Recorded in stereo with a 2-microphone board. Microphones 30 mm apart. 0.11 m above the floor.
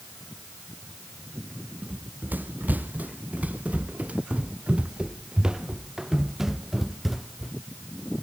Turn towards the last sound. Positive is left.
turn(degrees=0)  # may be behind; listen again after turning